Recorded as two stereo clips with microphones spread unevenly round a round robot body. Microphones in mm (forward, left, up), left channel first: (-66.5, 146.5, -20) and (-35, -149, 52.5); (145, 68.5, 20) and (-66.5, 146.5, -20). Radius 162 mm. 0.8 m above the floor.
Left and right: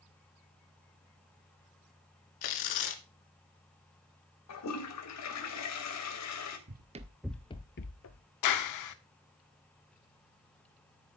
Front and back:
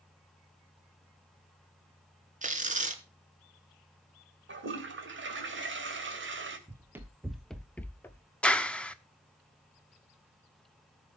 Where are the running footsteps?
115° right, 1.1 m; by 8.2 s 50° left, 1.2 m.